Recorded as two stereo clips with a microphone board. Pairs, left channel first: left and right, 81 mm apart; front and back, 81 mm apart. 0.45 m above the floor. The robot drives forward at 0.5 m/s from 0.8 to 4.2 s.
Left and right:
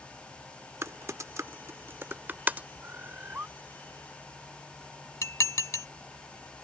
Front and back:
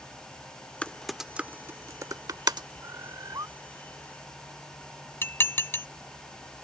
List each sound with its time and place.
0.8 s typing on a keyboard: 65° right; by 2.7 s 155° right
2.8 s a bird: 145° right; by 3.5 s 150° right
5.2 s dishes clattering: 55° left